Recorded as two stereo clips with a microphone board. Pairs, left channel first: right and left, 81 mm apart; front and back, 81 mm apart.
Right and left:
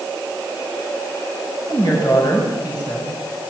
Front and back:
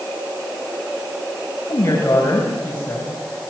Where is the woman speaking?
55° right, 7 m; by 3.4 s 65° right, 6.5 m.